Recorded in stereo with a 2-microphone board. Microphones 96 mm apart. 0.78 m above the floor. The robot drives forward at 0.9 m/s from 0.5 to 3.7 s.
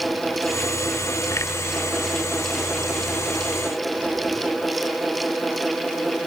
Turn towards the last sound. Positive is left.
No sound to turn to.